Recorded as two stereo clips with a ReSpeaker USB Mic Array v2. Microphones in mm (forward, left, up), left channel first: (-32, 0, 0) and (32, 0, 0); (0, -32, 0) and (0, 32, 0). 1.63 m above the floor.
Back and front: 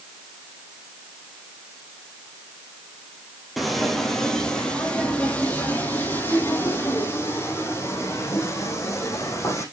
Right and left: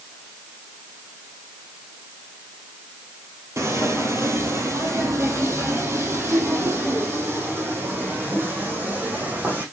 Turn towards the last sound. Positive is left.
turn(degrees=150)